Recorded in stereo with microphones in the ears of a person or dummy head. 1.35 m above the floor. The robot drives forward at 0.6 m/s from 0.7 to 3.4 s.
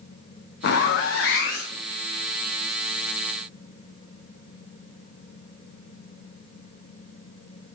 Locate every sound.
0.6 s a zipper: 60° left (ahead or behind), 0.7 m; by 1.8 s 50° left (ahead or behind), 0.8 m